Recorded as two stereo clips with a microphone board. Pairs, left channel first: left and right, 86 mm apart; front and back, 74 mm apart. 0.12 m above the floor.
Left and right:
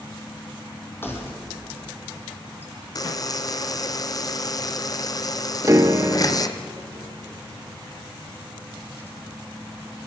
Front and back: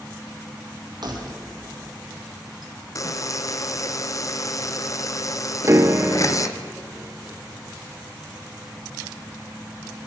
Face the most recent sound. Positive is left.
turn(degrees=-135)